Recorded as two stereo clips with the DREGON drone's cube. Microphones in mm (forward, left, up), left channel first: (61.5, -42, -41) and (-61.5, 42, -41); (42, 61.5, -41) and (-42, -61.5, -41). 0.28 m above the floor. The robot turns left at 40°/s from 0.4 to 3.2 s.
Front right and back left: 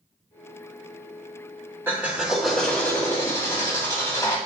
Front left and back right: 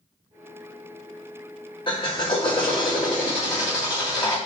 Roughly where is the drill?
Left.